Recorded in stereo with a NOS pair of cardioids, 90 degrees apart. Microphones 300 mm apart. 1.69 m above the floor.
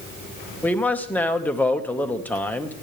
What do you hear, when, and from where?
0.6 s a man speaking: 5° left, 1.7 m